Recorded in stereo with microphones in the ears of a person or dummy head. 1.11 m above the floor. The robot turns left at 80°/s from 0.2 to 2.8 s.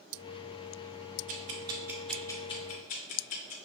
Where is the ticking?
40° right (ahead or behind), 0.5 m; by 3.5 s 40° left (ahead or behind), 0.5 m.